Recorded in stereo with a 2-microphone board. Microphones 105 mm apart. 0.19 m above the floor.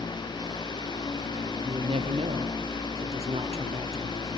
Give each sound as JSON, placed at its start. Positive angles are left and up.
{"t": 1.6, "sound": "a woman speaking", "side_deg": -65, "distance_m": 3.0}